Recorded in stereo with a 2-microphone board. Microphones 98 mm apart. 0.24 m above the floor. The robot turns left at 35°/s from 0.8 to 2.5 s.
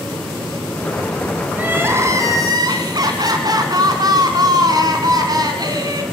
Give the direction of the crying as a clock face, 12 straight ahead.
1 o'clock.